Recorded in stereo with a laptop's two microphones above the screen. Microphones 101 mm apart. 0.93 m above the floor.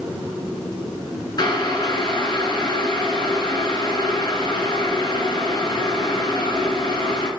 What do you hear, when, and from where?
1.4 s boiling: 45° left (ahead or behind), 2.0 m